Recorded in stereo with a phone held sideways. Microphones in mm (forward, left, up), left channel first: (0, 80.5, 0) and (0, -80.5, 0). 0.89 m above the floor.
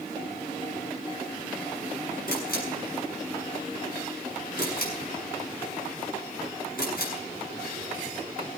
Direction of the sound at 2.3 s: 75° left (ahead or behind).